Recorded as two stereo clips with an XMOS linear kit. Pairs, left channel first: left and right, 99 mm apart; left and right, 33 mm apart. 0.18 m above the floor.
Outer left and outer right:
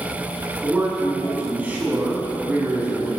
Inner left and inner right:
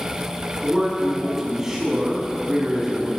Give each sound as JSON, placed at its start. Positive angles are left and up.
{"t": 0.6, "sound": "a man speaking", "side_deg": -15, "distance_m": 1.1}